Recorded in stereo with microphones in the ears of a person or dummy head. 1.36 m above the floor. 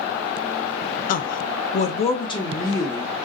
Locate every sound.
1.1 s a woman speaking: 45° left (ahead or behind), 0.6 m; by 3.1 s 15° left (ahead or behind), 1.3 m